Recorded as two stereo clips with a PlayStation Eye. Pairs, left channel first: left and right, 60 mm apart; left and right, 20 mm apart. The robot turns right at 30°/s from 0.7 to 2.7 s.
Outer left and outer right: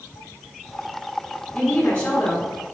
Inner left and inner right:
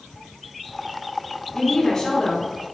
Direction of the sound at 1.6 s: 15° left (ahead or behind).